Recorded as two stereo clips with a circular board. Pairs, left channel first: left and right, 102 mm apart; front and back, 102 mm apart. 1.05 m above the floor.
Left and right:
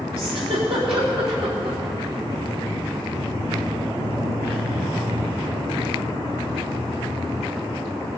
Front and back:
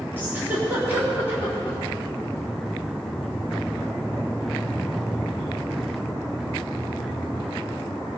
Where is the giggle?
110° right, 3.5 m.